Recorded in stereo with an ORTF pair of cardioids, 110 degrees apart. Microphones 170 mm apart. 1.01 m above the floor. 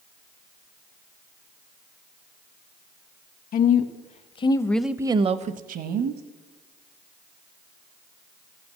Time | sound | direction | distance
3.5 | a woman speaking | 60° left | 1.1 m